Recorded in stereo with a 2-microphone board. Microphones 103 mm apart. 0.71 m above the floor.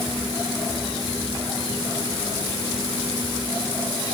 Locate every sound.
Only background noise.